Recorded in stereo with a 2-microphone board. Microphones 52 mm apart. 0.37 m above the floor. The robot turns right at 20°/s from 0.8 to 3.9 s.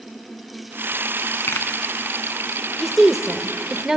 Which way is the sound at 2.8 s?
Centre (ahead or behind).